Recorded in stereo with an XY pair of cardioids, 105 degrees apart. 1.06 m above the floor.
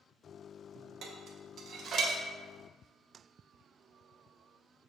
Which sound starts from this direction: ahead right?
Dishes clattering, at 1.0 s.